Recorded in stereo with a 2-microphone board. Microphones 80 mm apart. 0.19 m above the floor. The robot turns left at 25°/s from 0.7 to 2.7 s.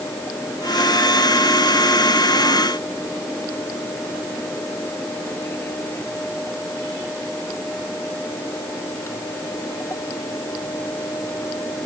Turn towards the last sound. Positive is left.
No sound to turn to.